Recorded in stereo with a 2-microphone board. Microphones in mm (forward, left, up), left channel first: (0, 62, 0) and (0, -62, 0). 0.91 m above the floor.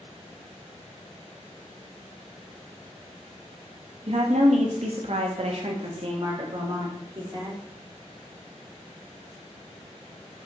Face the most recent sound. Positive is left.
turn(degrees=-35)  # may be behind; listen again after turning